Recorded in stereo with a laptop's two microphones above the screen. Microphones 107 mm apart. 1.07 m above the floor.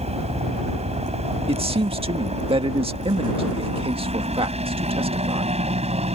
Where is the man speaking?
60° right (ahead or behind).